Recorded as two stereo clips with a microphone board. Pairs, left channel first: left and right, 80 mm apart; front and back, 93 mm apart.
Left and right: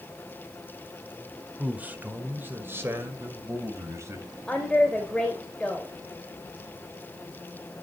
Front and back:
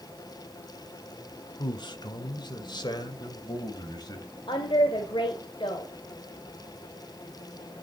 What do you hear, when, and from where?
1.6 s a man speaking: 20° right, 1.9 m; by 4.3 s 40° right, 3 m
4.5 s a woman speaking: 10° left, 2.5 m